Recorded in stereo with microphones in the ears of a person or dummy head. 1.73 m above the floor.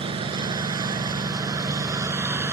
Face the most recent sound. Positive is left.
turn(degrees=-10)  # may be behind; listen again after turning